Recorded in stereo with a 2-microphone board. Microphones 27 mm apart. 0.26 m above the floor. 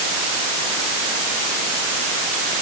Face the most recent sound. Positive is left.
No sound to turn to.